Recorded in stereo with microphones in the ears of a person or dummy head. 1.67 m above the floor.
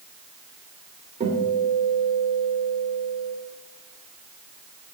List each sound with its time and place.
1.2 s a guitar: 30° right (ahead or behind), 3 m